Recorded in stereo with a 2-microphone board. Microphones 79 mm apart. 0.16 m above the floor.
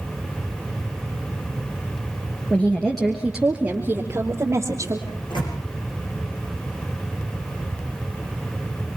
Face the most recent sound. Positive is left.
turn(degrees=70)  # may be behind; listen again after turning